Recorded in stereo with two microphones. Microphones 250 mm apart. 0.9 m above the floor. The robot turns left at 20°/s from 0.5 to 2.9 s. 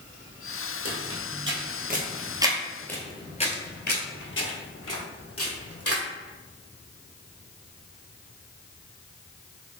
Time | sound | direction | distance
0.8 | footsteps | 65° right (ahead or behind) | 1.8 m